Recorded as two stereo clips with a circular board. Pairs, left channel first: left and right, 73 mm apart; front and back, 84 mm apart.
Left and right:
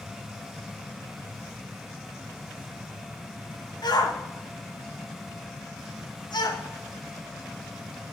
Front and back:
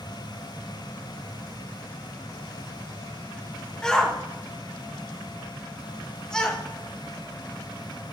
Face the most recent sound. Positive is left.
turn(degrees=80)